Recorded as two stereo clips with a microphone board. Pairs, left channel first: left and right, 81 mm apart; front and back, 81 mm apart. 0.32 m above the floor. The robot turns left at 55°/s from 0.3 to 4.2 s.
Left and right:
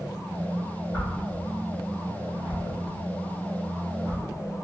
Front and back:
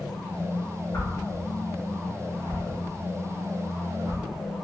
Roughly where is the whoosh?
Ahead left.